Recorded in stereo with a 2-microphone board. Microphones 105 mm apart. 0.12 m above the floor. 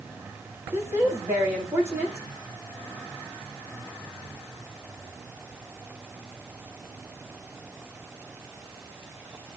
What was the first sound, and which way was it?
A woman speaking, 25° right (ahead or behind).